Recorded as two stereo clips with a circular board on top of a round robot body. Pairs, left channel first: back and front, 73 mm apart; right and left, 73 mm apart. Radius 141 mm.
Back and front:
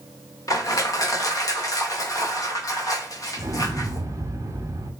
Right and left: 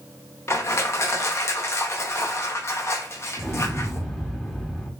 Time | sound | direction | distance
0.5 | crushing | 140° right | 0.7 m
3.4 | an explosion | straight ahead | 1.0 m